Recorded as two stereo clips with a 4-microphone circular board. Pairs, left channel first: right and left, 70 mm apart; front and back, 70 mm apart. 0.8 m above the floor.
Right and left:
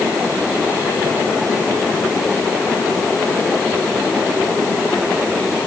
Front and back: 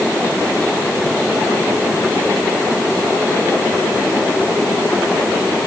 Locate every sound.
Only background noise.